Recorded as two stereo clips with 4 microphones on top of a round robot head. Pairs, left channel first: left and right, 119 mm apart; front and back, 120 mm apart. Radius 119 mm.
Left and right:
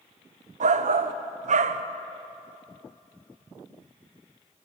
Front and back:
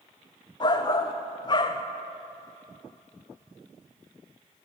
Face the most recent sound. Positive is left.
turn(degrees=-60)